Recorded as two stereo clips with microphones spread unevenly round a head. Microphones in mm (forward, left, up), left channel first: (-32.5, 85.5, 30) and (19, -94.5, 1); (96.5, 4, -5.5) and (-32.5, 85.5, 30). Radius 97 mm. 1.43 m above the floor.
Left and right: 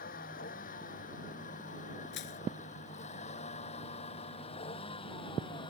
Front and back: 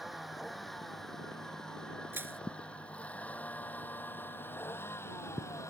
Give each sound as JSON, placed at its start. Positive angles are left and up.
{"t": 0.0, "sound": "a vehicle", "azimuth_deg": 60}
{"t": 2.1, "sound": "crushing", "azimuth_deg": 75}